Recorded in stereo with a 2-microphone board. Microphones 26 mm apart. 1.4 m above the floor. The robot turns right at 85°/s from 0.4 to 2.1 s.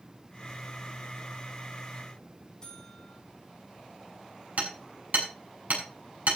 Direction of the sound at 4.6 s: 65° right (ahead or behind).